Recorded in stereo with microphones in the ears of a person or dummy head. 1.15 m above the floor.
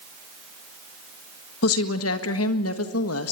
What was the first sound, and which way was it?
A woman speaking, 75° left (ahead or behind).